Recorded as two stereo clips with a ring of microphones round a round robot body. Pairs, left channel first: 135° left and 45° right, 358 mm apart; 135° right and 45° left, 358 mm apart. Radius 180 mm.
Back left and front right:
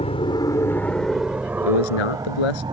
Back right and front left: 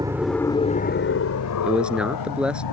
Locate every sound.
0.0 s an aircraft: 100° left; by 2.7 s 120° right
1.6 s a man speaking: 130° left